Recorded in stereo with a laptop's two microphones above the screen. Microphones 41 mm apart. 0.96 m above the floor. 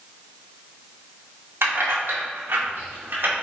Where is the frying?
I don't hear frying.